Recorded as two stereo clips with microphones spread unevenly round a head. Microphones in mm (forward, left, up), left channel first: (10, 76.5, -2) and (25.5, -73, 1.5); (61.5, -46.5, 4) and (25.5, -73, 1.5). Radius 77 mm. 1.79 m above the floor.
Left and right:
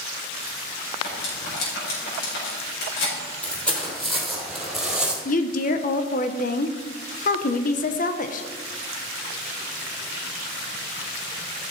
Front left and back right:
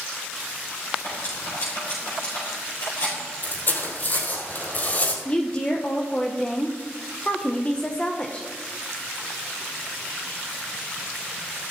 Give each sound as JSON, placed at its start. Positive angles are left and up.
{"t": 1.0, "sound": "cutlery clinking", "azimuth_deg": 80, "distance_m": 5.0}
{"t": 3.4, "sound": "footsteps", "azimuth_deg": 15, "distance_m": 3.5}
{"t": 5.2, "sound": "a woman speaking", "azimuth_deg": 100, "distance_m": 1.0}